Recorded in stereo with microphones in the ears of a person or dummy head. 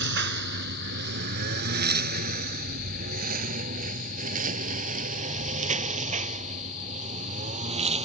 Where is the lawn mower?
60° right (ahead or behind); by 8.1 s 35° right (ahead or behind).